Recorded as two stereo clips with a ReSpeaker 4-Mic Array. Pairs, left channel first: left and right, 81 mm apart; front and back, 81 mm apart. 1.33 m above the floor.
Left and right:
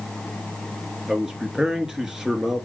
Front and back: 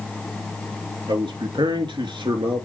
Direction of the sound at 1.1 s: 170° right.